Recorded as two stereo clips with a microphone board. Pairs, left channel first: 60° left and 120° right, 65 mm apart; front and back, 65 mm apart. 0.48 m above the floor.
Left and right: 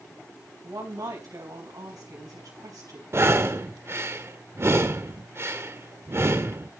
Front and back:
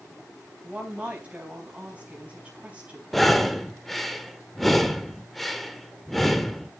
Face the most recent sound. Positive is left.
turn(degrees=-85)